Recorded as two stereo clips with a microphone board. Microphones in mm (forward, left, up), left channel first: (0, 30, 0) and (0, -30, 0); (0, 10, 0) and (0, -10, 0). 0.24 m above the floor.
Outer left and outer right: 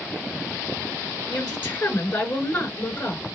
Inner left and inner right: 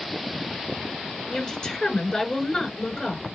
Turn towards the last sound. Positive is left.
turn(degrees=35)  # may be behind; listen again after turning